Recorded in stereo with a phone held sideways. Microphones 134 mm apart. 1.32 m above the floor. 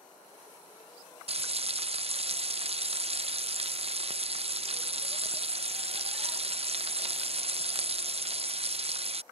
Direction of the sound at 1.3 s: 50° right (ahead or behind).